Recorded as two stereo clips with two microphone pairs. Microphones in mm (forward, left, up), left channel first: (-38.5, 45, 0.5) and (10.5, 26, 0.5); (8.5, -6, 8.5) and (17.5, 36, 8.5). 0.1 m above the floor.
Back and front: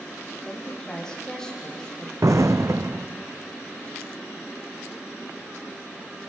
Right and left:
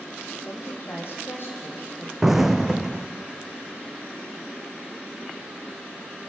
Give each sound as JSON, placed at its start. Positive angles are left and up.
{"t": 0.5, "sound": "a woman speaking", "azimuth_deg": -125, "distance_m": 5.5}
{"t": 2.2, "sound": "an explosion", "azimuth_deg": -5, "distance_m": 1.0}